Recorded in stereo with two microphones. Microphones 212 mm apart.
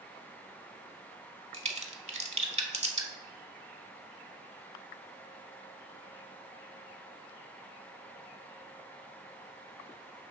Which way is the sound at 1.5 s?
35° right (ahead or behind).